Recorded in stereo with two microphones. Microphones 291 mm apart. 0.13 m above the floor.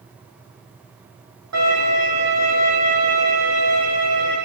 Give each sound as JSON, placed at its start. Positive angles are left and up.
{"t": 1.5, "sound": "a violin", "side_deg": -65, "distance_m": 4.0}